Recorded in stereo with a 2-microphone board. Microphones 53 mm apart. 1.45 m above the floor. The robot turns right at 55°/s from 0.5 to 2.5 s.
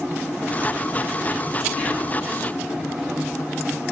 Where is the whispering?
25° left (ahead or behind), 1.5 m; by 2.2 s 5° right (ahead or behind), 1.5 m.